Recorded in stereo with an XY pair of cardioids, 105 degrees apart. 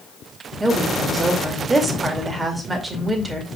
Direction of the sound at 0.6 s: 25° right.